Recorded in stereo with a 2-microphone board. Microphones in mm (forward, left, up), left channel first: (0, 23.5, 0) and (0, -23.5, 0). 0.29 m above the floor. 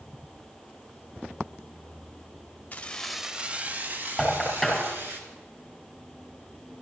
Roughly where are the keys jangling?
Left.